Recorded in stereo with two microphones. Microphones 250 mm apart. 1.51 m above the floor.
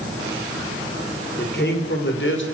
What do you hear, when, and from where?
1.4 s a man speaking: 45° left (ahead or behind), 5.5 m; by 2.4 s 55° left (ahead or behind), 6 m